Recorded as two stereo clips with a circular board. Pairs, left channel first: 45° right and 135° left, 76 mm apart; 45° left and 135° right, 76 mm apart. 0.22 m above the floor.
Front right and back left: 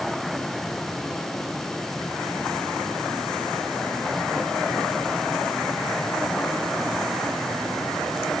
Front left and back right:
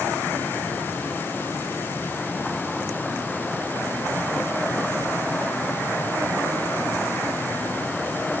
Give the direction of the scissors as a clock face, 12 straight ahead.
I don't hear scissors.